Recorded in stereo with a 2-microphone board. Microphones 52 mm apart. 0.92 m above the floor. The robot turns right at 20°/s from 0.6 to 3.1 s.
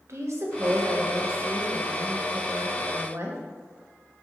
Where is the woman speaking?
110° right, 0.9 m; by 3.4 s 60° right, 0.9 m.